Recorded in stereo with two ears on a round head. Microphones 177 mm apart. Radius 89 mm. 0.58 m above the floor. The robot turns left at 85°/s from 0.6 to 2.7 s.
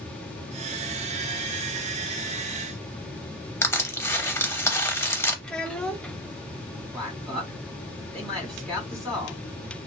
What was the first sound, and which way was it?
Crushing, 15° left (ahead or behind).